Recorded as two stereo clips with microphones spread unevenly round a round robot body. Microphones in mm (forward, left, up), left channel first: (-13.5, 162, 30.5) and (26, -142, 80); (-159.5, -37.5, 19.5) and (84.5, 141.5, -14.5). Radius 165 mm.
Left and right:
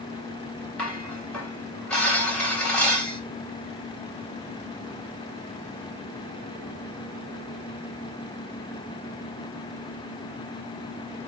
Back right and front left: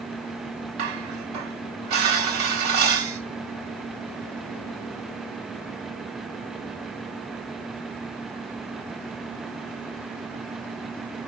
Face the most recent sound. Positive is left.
turn(degrees=10)